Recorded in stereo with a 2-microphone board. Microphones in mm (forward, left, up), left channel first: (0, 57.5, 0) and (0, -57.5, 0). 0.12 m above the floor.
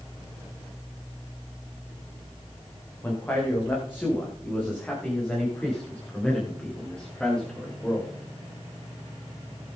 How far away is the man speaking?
About 8 m.